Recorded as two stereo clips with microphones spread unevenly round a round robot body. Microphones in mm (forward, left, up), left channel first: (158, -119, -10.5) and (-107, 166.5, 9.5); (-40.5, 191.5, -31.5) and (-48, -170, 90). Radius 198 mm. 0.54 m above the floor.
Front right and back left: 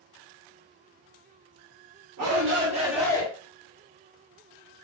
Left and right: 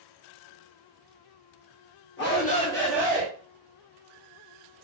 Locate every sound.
2.2 s a shout: 100° left, 1.8 m; by 3.3 s 10° right, 1.4 m